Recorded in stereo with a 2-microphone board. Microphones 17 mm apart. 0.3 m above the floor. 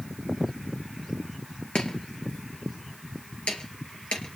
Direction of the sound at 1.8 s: 80° left.